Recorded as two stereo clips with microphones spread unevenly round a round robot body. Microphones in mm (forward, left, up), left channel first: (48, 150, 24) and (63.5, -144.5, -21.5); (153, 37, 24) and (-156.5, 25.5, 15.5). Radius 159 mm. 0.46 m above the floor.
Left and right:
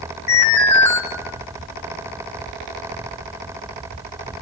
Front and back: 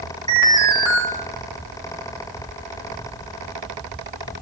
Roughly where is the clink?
I don't hear a clink.